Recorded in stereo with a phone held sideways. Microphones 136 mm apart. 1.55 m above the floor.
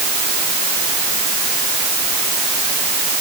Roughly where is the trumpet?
I don't hear a trumpet.